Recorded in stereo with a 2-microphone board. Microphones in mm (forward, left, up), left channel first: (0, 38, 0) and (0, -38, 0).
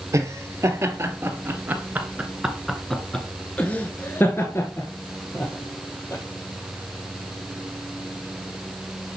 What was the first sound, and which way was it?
Laughter, 40° right (ahead or behind).